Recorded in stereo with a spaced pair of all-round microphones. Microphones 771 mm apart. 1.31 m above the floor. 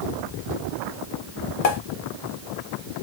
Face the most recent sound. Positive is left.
turn(degrees=55)  # may be behind; listen again after turning